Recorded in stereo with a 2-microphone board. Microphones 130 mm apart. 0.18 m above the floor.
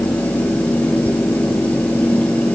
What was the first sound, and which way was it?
Only background noise.